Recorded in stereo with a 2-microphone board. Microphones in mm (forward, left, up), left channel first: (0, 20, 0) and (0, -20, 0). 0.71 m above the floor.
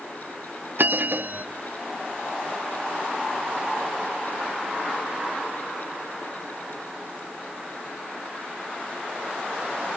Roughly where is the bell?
Right.